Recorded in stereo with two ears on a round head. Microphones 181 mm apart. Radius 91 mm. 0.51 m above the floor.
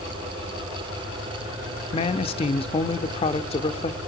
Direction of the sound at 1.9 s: 30° left (ahead or behind).